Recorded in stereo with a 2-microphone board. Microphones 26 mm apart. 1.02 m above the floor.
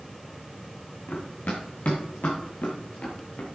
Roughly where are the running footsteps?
Left.